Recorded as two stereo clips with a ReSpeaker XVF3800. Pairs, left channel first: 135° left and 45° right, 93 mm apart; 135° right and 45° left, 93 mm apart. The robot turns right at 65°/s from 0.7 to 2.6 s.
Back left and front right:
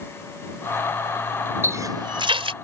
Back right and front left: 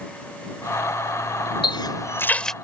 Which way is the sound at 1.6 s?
110° right.